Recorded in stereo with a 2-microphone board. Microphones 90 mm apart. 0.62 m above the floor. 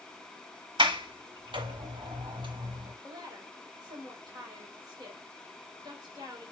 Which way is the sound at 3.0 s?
50° right (ahead or behind).